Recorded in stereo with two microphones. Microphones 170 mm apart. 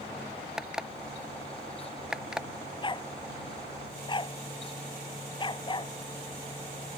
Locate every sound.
0.6 s an alarm clock: 5° right (ahead or behind)
2.8 s a dog barking: 30° left (ahead or behind)